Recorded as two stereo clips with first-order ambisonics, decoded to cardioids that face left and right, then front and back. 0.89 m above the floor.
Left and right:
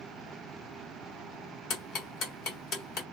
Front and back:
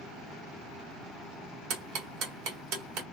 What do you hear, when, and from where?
1.7 s ticking: 145° left, 1.6 m